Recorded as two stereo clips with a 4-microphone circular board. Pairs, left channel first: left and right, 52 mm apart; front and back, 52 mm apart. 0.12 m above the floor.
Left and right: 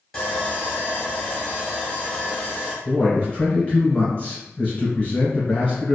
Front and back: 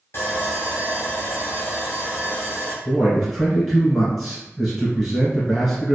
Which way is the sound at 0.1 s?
5° left.